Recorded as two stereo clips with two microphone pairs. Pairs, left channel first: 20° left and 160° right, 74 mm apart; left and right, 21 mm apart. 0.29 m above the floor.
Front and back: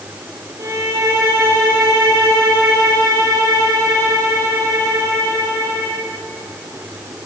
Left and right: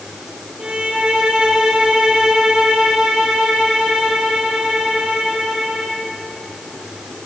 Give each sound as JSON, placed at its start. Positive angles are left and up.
{"t": 0.6, "sound": "a violin", "azimuth_deg": -115, "distance_m": 9.5}